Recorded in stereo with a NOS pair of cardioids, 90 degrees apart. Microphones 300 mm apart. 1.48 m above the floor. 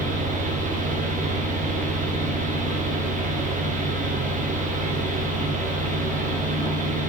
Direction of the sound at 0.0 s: 25° right.